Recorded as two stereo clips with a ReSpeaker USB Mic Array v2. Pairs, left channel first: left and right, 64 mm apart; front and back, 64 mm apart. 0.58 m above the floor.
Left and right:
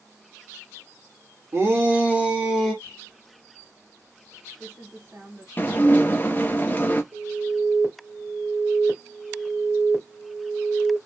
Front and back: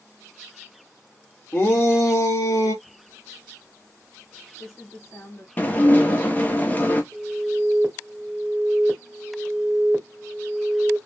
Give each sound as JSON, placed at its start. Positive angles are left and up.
{"t": 1.5, "sound": "a shout", "azimuth_deg": -50, "distance_m": 1.7}
{"t": 2.8, "sound": "typing on a keyboard", "azimuth_deg": -40, "distance_m": 1.8}
{"t": 5.6, "sound": "dishes clattering", "azimuth_deg": 45, "distance_m": 0.7}
{"t": 7.1, "sound": "an alarm", "azimuth_deg": -120, "distance_m": 1.5}